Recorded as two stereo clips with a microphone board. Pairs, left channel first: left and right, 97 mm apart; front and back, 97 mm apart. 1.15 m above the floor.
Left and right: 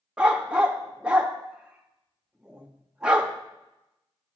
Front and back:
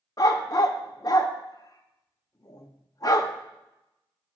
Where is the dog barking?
15° right, 0.6 m.